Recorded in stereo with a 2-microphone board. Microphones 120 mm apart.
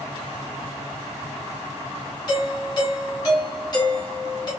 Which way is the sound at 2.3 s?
35° left (ahead or behind).